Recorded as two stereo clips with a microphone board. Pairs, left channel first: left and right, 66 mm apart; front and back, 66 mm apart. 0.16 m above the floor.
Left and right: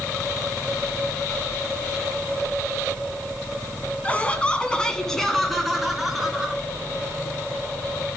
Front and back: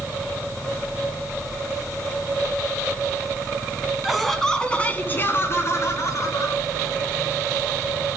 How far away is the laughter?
About 1.7 m.